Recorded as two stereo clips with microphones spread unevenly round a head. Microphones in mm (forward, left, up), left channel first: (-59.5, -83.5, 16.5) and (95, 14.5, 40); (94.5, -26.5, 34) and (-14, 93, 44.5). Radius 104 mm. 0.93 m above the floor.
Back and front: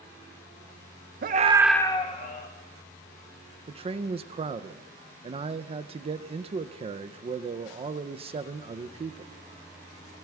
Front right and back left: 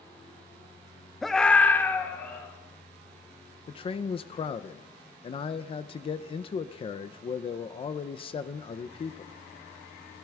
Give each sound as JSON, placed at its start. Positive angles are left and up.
{"t": 1.2, "sound": "a scream", "azimuth_deg": 40, "distance_m": 0.9}
{"t": 3.7, "sound": "a man speaking", "azimuth_deg": -20, "distance_m": 0.5}